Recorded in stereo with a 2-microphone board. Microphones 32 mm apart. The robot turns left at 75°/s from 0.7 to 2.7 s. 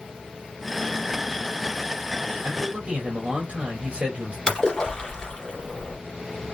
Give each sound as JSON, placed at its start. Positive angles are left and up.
{"t": 2.4, "sound": "a man speaking", "side_deg": -65, "distance_m": 2.0}
{"t": 4.5, "sound": "a splash", "side_deg": 25, "distance_m": 2.5}